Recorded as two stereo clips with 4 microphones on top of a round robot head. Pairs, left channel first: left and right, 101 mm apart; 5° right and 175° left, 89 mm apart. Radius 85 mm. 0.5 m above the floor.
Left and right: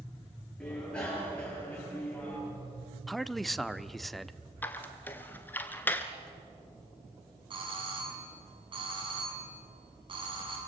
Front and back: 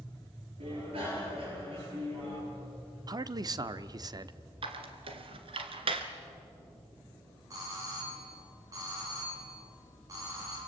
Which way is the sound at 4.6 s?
160° left.